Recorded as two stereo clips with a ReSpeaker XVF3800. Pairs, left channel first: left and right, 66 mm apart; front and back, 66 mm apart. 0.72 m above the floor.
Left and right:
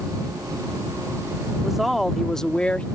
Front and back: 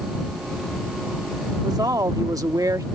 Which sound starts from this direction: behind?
A woman speaking, at 1.6 s.